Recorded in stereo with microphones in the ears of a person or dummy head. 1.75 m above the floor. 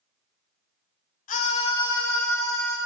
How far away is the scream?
About 0.8 m.